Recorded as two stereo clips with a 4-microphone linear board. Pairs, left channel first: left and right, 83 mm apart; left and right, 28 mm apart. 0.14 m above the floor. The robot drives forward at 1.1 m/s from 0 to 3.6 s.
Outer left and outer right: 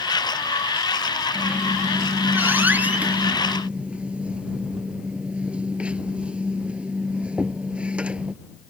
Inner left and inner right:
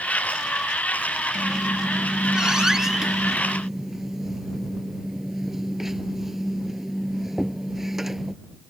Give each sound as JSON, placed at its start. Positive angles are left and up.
{"t": 1.4, "sound": "a squeak", "side_deg": -20}